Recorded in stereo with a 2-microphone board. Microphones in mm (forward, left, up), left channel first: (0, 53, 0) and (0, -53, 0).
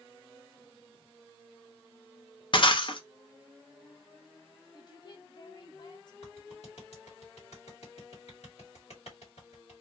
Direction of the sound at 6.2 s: 90° left.